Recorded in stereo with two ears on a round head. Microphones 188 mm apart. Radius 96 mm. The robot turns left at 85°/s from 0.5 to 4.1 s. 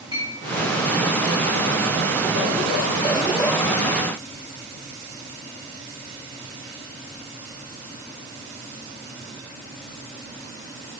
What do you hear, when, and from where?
0.1 s a clink: 20° right (ahead or behind), 3.5 m